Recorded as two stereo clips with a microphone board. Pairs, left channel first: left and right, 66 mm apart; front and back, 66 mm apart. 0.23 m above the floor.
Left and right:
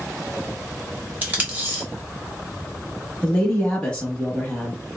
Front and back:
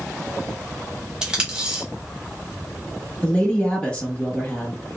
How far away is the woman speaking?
About 1.0 m.